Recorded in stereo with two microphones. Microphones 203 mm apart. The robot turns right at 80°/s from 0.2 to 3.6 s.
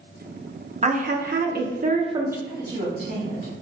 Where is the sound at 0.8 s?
135° right, 0.7 m; by 2.4 s 10° right, 0.7 m.